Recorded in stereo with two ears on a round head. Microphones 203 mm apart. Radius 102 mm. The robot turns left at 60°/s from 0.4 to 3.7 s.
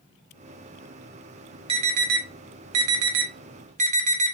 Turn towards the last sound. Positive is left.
turn(degrees=-35)  # may be behind; listen again after turning